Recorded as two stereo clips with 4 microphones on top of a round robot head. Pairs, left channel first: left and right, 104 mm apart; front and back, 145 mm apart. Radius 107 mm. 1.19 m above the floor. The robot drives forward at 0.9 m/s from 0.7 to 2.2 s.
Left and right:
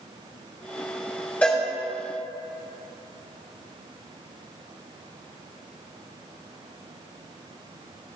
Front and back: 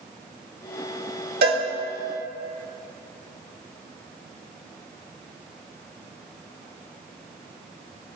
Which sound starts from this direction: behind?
A cowbell, at 1.4 s.